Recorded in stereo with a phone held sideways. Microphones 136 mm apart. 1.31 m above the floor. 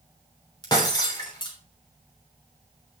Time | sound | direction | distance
0.6 | breaking glass | 30° left (ahead or behind) | 3 m